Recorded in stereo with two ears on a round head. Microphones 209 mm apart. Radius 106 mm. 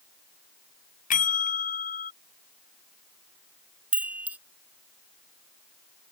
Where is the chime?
10° right (ahead or behind).